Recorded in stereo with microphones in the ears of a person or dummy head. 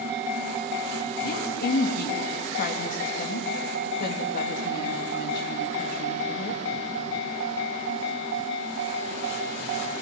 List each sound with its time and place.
1.2 s a woman speaking: 55° left (ahead or behind), 3 m